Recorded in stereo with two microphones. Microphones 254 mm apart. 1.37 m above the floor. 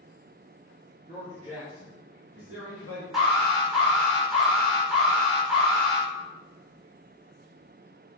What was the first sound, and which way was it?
A man speaking, 25° right (ahead or behind).